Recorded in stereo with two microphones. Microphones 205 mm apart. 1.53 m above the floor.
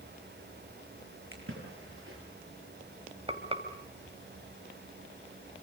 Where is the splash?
70° right (ahead or behind), 9 m.